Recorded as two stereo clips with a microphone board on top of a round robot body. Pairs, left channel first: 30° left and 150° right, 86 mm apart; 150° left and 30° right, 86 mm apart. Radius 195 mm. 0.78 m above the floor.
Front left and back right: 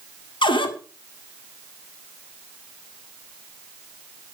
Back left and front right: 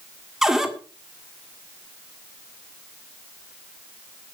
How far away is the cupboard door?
About 2.0 m.